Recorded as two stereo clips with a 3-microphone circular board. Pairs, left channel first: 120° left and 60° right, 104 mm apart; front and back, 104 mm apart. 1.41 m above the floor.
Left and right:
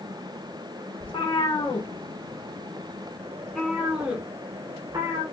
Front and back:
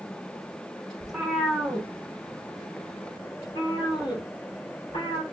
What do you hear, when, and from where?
1.0 s a cat meowing: 90° left, 1.7 m; by 5.2 s 15° right, 1.4 m